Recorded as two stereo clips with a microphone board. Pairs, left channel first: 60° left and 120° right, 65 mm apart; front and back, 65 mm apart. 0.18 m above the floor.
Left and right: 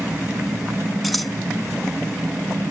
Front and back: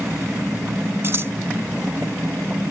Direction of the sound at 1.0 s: 150° left.